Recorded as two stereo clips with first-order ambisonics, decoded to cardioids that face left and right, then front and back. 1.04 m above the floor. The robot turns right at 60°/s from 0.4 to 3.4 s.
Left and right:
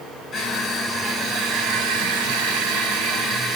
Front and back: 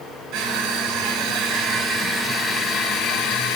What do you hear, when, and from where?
0.3 s crushing: 155° left, 5 m; by 3.6 s 25° right, 5 m